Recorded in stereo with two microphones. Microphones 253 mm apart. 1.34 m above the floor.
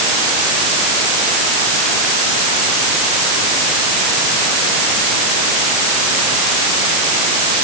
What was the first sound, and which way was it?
Only background noise.